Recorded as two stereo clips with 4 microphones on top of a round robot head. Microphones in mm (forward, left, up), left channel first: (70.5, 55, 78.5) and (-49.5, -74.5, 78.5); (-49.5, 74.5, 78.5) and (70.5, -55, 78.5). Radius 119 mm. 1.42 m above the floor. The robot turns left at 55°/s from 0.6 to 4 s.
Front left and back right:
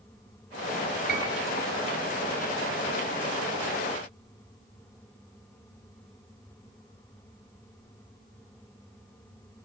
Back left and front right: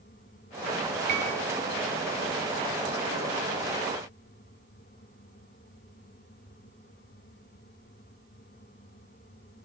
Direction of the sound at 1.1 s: 100° right.